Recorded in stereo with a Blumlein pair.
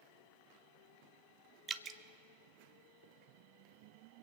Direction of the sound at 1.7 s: 20° right.